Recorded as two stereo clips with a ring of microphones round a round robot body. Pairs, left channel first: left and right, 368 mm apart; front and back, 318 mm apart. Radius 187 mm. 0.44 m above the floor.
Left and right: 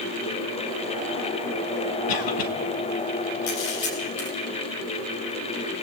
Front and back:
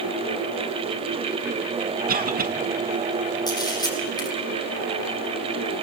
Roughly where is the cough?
Behind left.